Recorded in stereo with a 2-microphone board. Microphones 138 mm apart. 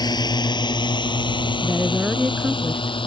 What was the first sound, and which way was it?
A drone, 30° left (ahead or behind).